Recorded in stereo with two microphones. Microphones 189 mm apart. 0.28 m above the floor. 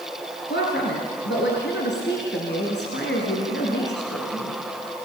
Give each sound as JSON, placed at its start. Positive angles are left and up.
{"t": 0.5, "sound": "a woman speaking", "side_deg": 70, "distance_m": 4.0}